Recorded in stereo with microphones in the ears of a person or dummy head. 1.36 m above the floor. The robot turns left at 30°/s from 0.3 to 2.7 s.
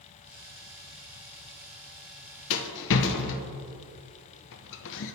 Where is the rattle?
70° left (ahead or behind), 0.6 m; by 5.1 s 65° left (ahead or behind), 0.6 m.